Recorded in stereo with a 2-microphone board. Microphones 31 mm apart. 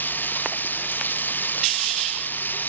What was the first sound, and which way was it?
Running water, 80° left.